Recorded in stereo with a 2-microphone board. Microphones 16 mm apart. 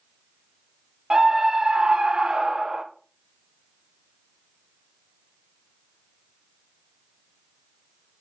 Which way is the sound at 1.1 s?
55° right (ahead or behind).